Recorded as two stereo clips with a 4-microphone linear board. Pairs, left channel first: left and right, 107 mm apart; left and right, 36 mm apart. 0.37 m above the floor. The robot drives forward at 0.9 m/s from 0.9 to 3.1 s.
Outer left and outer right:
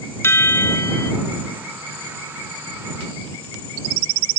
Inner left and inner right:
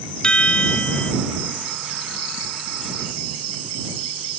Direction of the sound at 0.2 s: 25° left (ahead or behind).